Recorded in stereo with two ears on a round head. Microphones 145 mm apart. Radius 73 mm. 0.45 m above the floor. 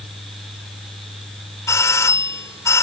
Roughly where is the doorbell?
Centre.